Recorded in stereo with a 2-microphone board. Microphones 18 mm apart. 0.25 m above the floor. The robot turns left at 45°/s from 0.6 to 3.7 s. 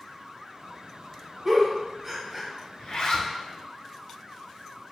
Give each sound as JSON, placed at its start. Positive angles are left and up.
{"t": 1.4, "sound": "a giggle", "side_deg": -35, "distance_m": 1.1}
{"t": 2.8, "sound": "a zipper", "side_deg": 65, "distance_m": 0.6}